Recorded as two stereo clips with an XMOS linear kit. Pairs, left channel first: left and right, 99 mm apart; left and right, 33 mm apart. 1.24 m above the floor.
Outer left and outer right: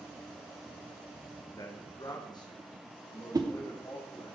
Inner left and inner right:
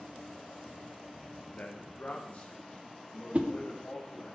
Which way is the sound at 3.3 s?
40° right (ahead or behind).